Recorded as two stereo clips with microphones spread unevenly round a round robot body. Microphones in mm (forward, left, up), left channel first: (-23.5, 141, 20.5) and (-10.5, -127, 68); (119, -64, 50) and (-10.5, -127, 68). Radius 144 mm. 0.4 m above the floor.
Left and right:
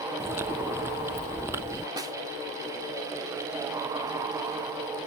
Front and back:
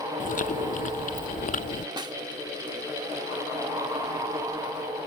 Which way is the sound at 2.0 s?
170° right.